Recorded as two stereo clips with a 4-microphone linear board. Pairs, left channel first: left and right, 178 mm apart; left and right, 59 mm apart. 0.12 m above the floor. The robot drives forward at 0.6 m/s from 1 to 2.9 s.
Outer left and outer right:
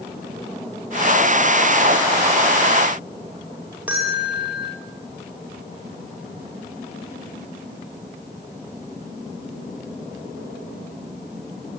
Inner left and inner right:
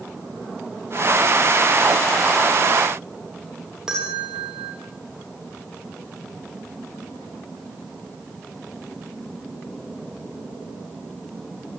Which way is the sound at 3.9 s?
10° right (ahead or behind).